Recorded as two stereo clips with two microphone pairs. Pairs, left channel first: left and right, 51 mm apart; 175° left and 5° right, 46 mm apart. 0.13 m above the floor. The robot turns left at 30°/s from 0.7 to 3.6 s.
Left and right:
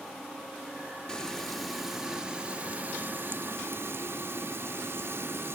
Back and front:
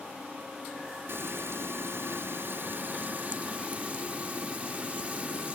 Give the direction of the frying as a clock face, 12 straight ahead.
11 o'clock.